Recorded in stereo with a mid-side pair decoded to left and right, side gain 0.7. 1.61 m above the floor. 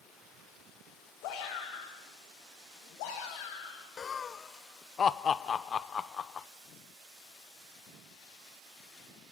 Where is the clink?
I don't hear a clink.